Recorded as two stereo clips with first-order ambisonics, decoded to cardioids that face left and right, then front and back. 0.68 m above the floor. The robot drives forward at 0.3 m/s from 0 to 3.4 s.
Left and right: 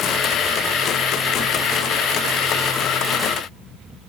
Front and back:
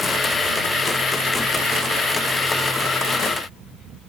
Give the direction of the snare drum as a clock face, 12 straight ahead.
I don't hear a snare drum.